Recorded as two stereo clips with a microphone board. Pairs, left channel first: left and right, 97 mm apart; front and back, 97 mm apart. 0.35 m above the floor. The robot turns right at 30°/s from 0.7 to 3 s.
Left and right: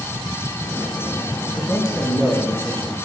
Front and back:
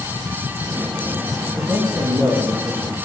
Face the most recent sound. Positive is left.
turn(degrees=175)